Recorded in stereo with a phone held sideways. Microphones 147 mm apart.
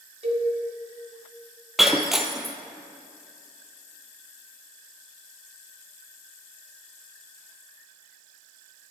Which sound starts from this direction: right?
A cowbell, at 0.2 s.